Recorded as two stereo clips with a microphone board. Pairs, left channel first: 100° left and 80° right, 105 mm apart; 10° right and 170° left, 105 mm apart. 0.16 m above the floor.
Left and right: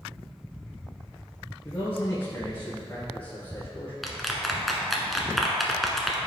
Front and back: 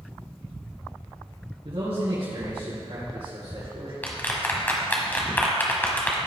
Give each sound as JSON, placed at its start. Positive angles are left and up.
{"t": 1.6, "sound": "a man speaking", "azimuth_deg": 170, "distance_m": 3.0}
{"t": 4.0, "sound": "a clap", "azimuth_deg": 10, "distance_m": 1.1}